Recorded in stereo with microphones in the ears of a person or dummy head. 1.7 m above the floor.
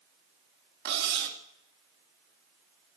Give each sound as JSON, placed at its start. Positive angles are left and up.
{"t": 0.8, "sound": "cutlery clinking", "side_deg": -60, "distance_m": 1.9}